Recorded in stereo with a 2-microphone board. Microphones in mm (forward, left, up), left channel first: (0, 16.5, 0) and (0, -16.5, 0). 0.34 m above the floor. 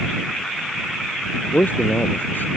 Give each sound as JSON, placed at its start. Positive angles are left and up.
{"t": 1.5, "sound": "a man speaking", "side_deg": 70}